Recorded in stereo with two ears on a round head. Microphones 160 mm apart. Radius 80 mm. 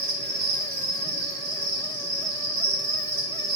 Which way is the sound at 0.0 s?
55° right (ahead or behind).